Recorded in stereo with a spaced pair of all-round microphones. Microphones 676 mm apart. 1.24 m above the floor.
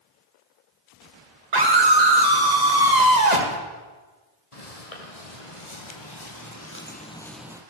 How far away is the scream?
About 1.9 m.